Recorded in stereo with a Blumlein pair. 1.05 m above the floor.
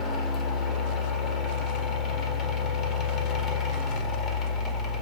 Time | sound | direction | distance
0.0 | a fan | 25° left | 0.8 m